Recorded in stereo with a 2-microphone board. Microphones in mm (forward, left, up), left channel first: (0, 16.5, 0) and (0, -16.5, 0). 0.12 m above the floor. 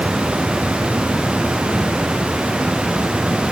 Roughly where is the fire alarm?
No fire alarm in this recording.